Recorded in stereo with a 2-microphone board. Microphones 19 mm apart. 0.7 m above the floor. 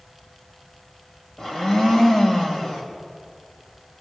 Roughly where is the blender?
Left.